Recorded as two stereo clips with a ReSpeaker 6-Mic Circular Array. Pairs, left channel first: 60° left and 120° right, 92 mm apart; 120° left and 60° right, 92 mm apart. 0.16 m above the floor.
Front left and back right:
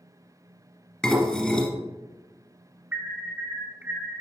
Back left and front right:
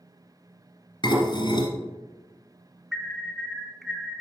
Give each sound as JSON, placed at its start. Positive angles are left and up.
{"t": 1.0, "sound": "dishes clattering", "azimuth_deg": 140, "distance_m": 1.4}
{"t": 2.9, "sound": "an alarm", "azimuth_deg": -145, "distance_m": 0.8}